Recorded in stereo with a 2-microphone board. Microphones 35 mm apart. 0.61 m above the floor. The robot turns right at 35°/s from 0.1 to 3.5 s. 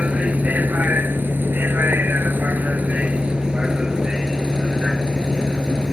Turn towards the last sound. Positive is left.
turn(degrees=-25)